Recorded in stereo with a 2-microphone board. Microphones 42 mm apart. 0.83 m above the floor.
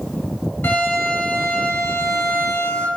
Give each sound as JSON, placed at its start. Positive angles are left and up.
{"t": 0.6, "sound": "a violin", "side_deg": 70, "distance_m": 3.0}